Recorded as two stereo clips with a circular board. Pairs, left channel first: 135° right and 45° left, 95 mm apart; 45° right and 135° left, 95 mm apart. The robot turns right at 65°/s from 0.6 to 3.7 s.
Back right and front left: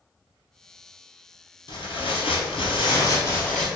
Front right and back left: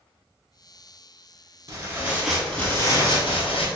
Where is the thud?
I don't hear a thud.